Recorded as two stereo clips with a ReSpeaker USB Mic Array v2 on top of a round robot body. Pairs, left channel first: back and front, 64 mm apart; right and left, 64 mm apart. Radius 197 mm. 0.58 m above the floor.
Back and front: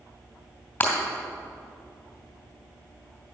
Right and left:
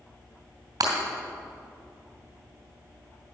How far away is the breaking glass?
About 2.5 m.